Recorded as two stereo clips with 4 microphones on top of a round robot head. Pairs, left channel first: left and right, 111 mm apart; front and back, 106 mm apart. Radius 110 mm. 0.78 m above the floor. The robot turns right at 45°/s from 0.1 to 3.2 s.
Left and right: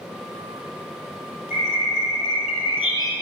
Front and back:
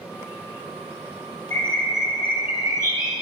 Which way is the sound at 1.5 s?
70° left.